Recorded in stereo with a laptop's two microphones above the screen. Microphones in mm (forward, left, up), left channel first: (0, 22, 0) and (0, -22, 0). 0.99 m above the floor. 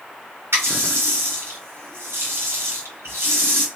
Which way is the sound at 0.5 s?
80° right.